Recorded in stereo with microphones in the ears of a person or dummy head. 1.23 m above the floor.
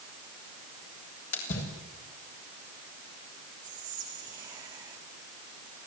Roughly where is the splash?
Left.